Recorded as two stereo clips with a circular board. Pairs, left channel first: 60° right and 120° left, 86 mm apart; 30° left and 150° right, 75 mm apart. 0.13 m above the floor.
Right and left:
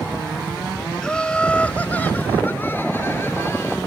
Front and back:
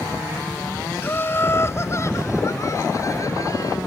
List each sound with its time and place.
1.0 s laughter: 15° left; by 3.8 s 5° right